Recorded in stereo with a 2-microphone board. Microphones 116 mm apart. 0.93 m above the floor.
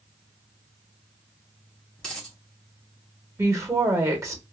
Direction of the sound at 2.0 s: 5° left (ahead or behind).